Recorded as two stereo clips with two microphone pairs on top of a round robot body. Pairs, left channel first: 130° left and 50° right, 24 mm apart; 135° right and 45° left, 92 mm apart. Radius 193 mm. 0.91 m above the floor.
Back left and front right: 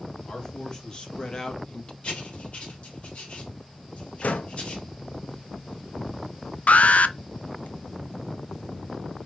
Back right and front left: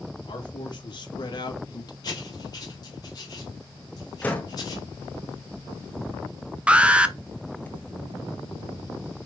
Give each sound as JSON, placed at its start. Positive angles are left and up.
{"t": 0.3, "sound": "a man speaking", "azimuth_deg": -175, "distance_m": 3.0}
{"t": 2.0, "sound": "writing", "azimuth_deg": 175, "distance_m": 2.5}
{"t": 4.2, "sound": "a door slam", "azimuth_deg": 150, "distance_m": 1.1}
{"t": 6.7, "sound": "an alarm", "azimuth_deg": 120, "distance_m": 0.8}